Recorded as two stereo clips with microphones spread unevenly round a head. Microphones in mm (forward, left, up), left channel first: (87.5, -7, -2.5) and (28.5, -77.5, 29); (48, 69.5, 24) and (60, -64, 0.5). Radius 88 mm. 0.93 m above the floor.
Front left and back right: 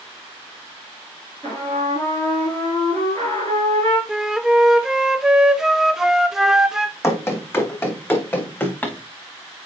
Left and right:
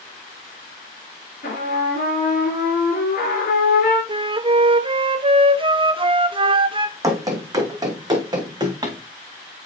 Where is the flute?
40° right, 0.7 m.